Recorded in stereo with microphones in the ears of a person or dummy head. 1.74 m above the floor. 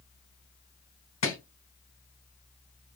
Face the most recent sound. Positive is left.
turn(degrees=35)  # may be behind; listen again after turning